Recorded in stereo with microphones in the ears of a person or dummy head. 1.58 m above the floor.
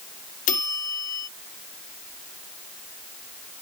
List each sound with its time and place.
0.5 s a bell: 45° left (ahead or behind)